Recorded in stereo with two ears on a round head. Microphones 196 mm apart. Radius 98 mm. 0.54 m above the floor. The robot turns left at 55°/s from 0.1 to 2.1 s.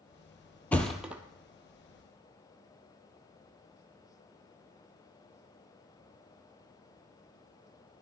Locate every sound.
0.7 s a thud: 10° left (ahead or behind), 0.6 m; by 1.2 s 10° right (ahead or behind), 0.6 m